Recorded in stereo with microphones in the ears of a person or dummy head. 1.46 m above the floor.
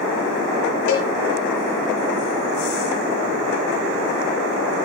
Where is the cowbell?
65° left (ahead or behind), 3.5 m.